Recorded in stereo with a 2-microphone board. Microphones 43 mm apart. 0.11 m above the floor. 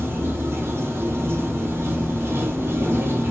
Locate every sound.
0.0 s running water: 65° right (ahead or behind), 1.1 m